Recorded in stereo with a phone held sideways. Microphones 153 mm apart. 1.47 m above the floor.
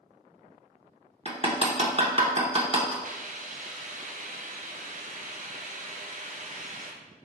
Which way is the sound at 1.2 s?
35° right (ahead or behind).